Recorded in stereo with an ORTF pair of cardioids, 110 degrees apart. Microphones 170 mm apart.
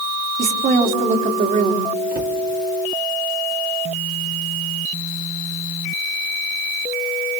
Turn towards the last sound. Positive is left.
turn(degrees=-55)